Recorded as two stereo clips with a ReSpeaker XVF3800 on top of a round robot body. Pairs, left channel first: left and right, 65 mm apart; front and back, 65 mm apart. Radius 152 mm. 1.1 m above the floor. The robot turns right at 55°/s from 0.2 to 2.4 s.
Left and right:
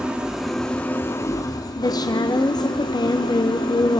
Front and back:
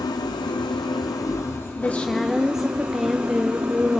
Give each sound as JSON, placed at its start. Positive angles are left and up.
{"t": 0.0, "sound": "an engine running", "azimuth_deg": -15, "distance_m": 1.0}
{"t": 1.8, "sound": "a woman speaking", "azimuth_deg": 60, "distance_m": 0.8}